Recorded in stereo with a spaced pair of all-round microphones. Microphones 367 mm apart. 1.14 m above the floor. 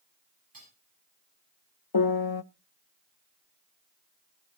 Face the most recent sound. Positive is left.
turn(degrees=80)